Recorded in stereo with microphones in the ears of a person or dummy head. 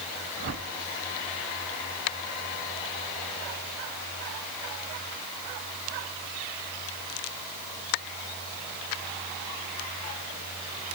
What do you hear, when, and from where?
0.4 s a whoosh: 50° right (ahead or behind), 1.4 m